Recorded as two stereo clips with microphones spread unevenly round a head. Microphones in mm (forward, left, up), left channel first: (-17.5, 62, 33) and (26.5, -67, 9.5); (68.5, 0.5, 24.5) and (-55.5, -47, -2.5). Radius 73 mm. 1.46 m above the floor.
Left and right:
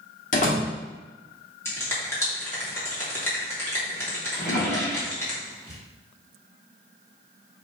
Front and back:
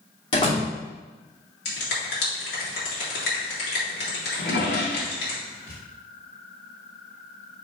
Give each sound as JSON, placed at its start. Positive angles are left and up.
{"t": 0.3, "sound": "a door slam", "azimuth_deg": 80, "distance_m": 2.5}
{"t": 1.6, "sound": "a finger snap", "azimuth_deg": 35, "distance_m": 2.5}
{"t": 4.3, "sound": "a drawer", "azimuth_deg": 45, "distance_m": 3.5}